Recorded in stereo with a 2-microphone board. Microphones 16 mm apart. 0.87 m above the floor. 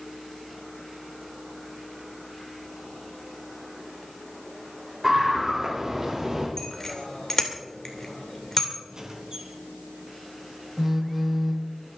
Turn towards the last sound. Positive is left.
turn(degrees=-10)  # may be behind; listen again after turning